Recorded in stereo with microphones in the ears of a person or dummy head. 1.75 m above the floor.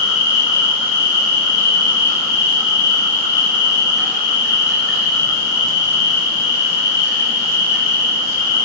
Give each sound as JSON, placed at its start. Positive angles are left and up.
{"t": 0.0, "sound": "an insect", "side_deg": 55, "distance_m": 1.2}